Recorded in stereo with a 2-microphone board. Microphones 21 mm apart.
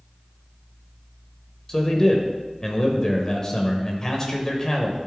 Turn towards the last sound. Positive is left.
turn(degrees=25)  # may be behind; listen again after turning